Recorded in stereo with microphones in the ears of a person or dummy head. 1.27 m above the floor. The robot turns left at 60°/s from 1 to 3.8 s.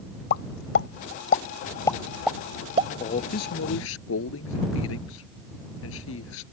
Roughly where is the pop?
Left.